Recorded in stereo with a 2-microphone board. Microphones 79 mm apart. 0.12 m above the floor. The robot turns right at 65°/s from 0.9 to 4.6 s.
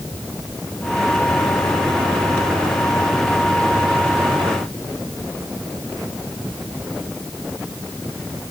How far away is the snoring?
No snoring in this recording.